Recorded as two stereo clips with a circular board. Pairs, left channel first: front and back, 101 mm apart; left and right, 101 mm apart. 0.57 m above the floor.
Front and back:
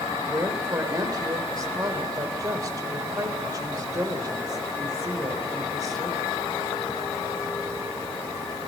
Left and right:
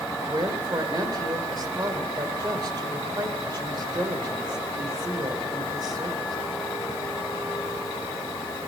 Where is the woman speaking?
135° right, 2.5 m.